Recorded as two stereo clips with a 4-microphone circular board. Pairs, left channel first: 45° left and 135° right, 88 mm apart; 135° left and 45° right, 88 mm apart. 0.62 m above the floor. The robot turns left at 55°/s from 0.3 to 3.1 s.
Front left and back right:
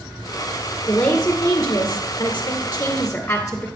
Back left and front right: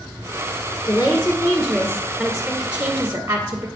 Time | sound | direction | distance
0.9 | a woman speaking | 115° left | 1.3 m